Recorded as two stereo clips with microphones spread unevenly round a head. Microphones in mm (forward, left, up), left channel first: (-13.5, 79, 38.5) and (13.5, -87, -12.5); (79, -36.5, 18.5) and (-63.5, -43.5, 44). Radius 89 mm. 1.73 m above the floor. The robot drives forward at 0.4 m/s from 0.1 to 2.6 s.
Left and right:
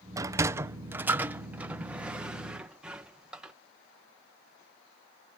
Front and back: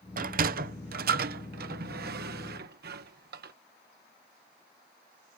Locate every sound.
0.2 s a sliding door: 160° right; by 3.5 s 170° right